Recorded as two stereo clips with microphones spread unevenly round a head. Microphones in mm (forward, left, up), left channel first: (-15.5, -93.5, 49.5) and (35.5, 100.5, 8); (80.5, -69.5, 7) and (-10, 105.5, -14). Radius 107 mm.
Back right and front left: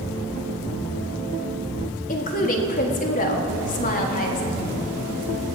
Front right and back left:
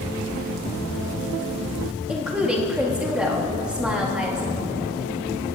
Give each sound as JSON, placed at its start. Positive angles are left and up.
{"t": 2.1, "sound": "a woman speaking", "azimuth_deg": -155, "distance_m": 1.4}